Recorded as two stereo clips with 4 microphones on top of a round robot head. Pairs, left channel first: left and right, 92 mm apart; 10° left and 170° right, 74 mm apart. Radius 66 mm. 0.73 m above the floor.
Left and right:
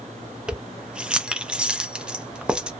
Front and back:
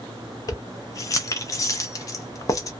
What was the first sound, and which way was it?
Keys jangling, 15° right.